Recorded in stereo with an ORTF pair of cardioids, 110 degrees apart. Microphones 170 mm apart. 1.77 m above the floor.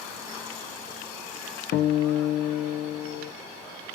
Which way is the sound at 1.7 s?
65° left.